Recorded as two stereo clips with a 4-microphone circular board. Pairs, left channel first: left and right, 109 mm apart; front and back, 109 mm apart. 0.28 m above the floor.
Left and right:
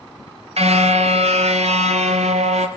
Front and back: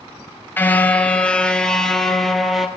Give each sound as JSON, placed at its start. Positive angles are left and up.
{"t": 0.6, "sound": "a car horn", "azimuth_deg": -70, "distance_m": 2.0}